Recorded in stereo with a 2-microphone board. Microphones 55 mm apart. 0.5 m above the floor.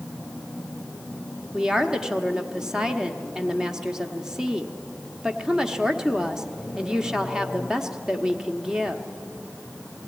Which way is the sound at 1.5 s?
10° right (ahead or behind).